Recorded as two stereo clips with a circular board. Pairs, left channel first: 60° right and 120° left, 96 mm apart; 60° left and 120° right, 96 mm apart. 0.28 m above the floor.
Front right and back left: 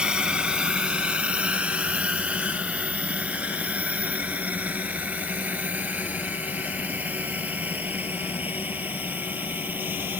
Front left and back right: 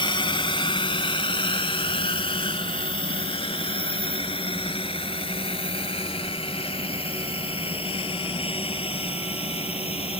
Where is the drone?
40° left; by 10.2 s 50° left.